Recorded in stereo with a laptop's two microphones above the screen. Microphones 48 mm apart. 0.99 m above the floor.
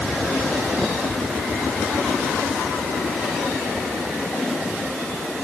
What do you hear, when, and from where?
Only background noise.